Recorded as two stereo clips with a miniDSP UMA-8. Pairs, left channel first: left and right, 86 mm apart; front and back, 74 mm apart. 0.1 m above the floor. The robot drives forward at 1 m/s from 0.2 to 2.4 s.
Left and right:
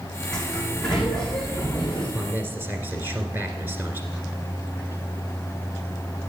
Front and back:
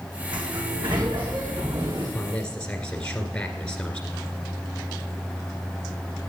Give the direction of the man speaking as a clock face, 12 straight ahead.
2 o'clock.